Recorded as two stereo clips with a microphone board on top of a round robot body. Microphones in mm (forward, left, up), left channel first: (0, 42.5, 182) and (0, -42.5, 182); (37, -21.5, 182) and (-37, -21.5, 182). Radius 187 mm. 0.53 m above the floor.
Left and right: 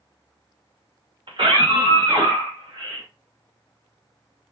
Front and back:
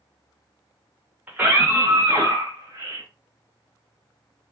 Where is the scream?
110° right, 2.5 m; by 3.0 s 140° right, 2.5 m.